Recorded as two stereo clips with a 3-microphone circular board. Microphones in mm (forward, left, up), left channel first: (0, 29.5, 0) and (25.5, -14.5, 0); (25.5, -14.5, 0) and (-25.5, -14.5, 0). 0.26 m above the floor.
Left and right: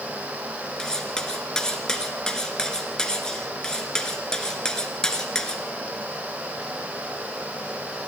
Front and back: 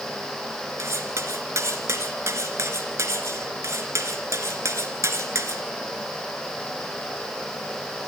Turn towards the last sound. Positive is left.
turn(degrees=-165)